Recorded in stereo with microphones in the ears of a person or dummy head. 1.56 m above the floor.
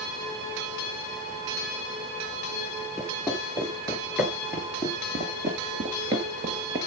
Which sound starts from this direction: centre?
Footsteps, at 3.0 s.